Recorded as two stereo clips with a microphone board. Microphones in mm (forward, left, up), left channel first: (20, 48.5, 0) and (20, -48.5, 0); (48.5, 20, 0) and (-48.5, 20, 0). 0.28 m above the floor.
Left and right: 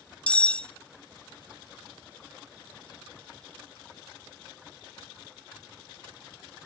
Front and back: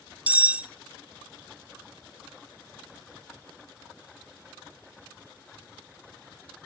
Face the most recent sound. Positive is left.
turn(degrees=140)